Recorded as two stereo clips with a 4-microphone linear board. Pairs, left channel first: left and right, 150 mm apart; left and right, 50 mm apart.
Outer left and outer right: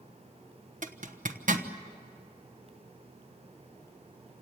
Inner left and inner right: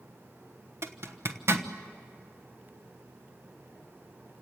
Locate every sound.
0.8 s a zipper: 60° right (ahead or behind), 1.1 m